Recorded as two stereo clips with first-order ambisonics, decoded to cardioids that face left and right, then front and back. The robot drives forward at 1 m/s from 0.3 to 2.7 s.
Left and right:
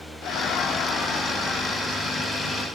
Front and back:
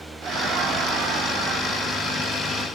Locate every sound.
0.2 s laughter: 125° left, 1.0 m; by 2.7 s 165° left, 3 m